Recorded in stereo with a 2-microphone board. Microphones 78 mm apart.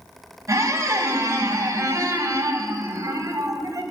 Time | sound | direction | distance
0.5 | a squeak | 35° right (ahead or behind) | 0.9 m